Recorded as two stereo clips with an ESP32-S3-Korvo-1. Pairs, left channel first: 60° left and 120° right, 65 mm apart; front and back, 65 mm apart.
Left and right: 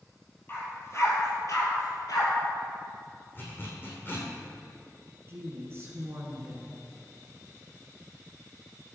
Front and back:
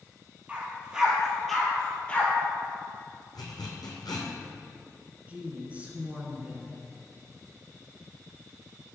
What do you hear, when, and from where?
0.5 s a dog barking: 110° left, 1.9 m; by 2.3 s 65° left, 1.8 m
3.4 s a zipper: 5° left, 2.0 m
5.3 s a woman speaking: 125° right, 1.5 m